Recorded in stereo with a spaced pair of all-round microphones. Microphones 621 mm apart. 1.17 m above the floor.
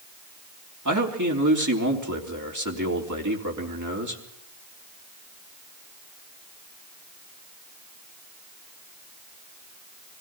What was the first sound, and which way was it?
A man speaking, 30° right (ahead or behind).